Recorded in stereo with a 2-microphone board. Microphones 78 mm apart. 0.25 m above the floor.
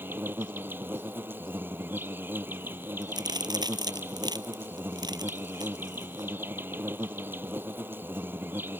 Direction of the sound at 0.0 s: 25° right (ahead or behind).